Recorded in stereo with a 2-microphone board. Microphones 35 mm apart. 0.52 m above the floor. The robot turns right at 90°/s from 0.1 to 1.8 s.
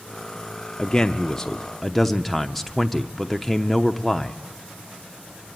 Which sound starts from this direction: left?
A man speaking, at 0.8 s.